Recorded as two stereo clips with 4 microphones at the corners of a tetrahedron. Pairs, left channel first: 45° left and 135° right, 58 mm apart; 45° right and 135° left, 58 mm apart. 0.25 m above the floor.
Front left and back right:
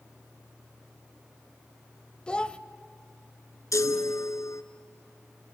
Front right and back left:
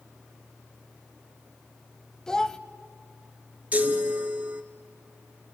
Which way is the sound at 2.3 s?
10° left.